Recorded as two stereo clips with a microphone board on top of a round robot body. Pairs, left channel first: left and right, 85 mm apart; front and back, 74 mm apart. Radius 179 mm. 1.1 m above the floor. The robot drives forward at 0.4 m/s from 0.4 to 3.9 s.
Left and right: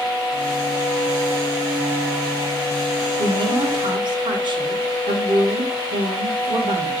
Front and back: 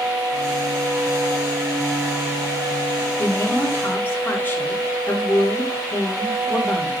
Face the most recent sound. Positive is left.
turn(degrees=-65)